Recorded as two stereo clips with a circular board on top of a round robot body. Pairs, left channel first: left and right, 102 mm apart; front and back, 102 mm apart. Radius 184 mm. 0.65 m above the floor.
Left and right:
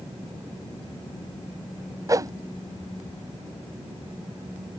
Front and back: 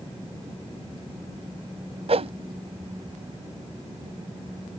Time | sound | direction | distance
2.1 | a whoosh | 150° right | ?